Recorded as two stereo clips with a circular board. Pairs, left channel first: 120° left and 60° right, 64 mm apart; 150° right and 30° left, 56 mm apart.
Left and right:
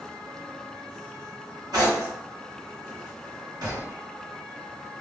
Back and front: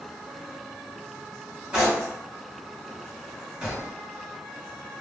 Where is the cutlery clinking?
40° right, 1.7 m.